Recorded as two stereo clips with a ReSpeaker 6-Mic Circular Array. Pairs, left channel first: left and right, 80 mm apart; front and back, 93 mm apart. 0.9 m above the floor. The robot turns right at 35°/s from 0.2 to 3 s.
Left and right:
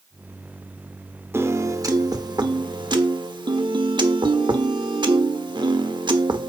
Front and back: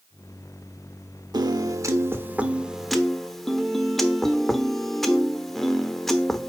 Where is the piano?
145° right, 1.0 m; by 6.5 s 90° right, 1.0 m.